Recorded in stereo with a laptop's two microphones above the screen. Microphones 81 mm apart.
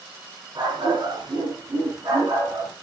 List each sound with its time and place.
0.6 s a dog barking: 70° right (ahead or behind), 5.5 m; by 2.7 s 55° right (ahead or behind), 5 m